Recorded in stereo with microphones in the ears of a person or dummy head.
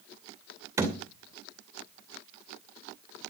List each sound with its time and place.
0.8 s a thud: 10° right (ahead or behind), 2.5 m